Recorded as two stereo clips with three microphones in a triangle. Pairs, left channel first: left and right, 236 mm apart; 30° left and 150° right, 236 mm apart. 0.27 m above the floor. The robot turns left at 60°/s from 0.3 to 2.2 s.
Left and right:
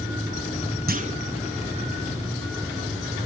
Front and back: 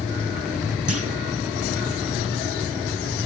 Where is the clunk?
140° right, 1.0 m; by 1.2 s 160° right, 1.0 m.